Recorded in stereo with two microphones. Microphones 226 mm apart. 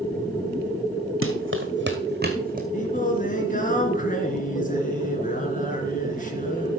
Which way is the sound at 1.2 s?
70° right (ahead or behind).